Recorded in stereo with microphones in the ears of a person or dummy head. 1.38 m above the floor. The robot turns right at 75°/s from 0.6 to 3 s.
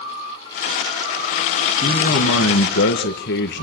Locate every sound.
1.8 s a man speaking: 30° left, 1.9 m; by 3.6 s 120° left, 1.9 m